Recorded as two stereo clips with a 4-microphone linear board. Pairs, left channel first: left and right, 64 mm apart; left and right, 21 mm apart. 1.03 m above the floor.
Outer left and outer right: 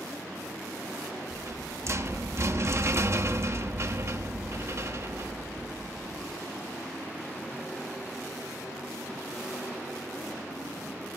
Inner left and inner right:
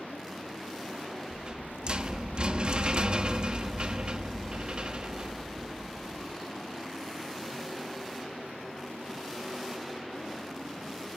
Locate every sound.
1.3 s a rattle: 45° right (ahead or behind), 0.8 m